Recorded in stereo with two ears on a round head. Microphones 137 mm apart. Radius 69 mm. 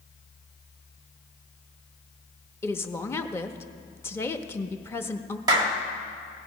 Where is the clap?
25° right (ahead or behind), 1.3 m.